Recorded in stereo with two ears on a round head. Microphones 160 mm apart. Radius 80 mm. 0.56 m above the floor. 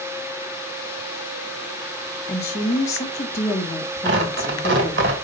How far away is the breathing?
No breathing in this recording.